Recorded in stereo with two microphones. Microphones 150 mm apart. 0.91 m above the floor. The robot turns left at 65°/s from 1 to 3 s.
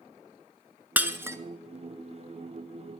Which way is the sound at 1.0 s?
10° right (ahead or behind).